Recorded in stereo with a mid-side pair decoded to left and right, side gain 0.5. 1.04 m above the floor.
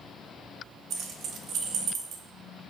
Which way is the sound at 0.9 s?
65° right.